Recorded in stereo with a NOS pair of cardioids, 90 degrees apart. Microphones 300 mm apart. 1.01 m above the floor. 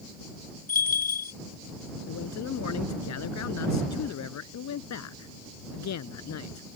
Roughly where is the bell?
Ahead left.